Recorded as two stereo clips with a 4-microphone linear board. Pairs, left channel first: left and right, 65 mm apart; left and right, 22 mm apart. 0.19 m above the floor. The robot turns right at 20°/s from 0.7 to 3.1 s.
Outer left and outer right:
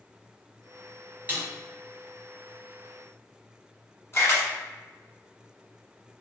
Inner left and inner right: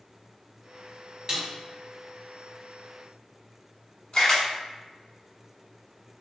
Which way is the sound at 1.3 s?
25° right (ahead or behind).